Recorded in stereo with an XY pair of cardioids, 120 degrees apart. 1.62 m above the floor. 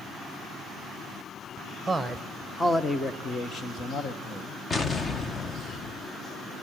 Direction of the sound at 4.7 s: 30° left.